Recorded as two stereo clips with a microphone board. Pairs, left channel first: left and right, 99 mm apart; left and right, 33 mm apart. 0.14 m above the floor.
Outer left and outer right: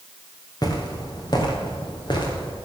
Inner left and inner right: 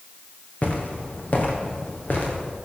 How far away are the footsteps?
About 3.5 m.